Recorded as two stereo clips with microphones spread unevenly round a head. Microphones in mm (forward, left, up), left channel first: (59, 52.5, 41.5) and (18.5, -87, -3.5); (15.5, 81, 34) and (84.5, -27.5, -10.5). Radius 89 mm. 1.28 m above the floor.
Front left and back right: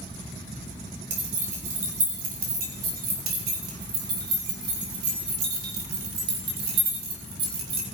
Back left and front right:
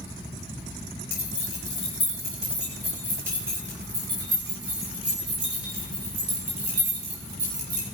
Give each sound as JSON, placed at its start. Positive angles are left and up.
{"t": 1.1, "sound": "keys jangling", "azimuth_deg": -160, "distance_m": 3.5}